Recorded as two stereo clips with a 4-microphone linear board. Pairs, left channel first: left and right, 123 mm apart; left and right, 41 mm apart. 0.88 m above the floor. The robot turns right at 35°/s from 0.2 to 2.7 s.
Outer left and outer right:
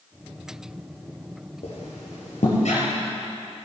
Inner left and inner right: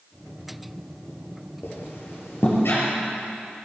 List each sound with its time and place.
1.6 s a squeak: 65° left (ahead or behind), 3.5 m; by 2.8 s 75° left (ahead or behind), 3.5 m